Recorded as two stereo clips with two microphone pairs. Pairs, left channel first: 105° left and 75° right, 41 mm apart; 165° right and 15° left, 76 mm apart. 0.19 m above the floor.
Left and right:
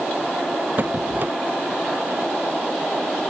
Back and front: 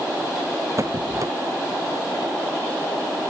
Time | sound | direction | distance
0.8 | a squeak | 30° right | ?